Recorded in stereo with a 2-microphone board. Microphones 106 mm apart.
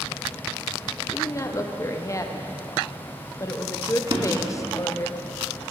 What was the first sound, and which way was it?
A woman speaking, 30° left (ahead or behind).